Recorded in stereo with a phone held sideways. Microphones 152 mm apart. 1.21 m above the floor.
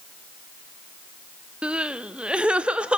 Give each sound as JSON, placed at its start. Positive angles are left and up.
{"t": 1.6, "sound": "crying", "side_deg": -5, "distance_m": 0.7}